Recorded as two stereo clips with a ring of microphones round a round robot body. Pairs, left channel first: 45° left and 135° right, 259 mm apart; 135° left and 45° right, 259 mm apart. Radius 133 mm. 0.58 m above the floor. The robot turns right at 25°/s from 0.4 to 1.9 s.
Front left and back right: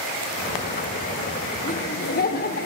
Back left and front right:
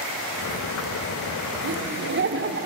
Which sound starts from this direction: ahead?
Laughter, at 1.6 s.